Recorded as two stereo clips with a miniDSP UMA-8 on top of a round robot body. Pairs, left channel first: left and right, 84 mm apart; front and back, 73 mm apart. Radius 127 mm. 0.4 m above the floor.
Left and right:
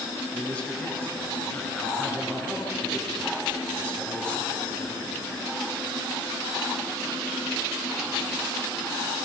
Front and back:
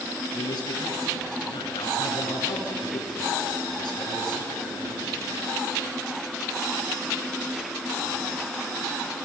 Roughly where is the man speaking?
Ahead.